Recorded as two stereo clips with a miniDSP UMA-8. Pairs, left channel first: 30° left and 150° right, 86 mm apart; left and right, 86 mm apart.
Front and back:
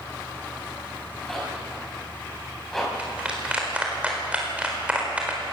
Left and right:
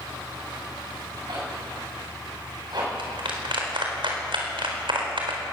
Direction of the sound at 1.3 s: 55° right.